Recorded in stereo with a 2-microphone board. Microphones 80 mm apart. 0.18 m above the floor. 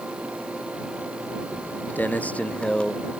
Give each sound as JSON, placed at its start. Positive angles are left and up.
{"t": 1.5, "sound": "footsteps", "side_deg": 30}